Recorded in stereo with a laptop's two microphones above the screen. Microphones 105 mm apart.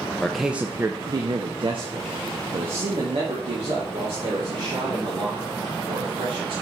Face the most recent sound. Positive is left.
turn(degrees=-85)